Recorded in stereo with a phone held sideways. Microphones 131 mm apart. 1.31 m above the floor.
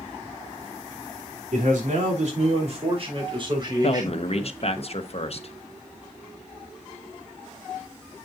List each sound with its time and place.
1.5 s a man speaking: 70° right (ahead or behind), 3 m; by 4.8 s 20° right (ahead or behind), 5 m
3.8 s a man speaking: 50° left (ahead or behind), 1.1 m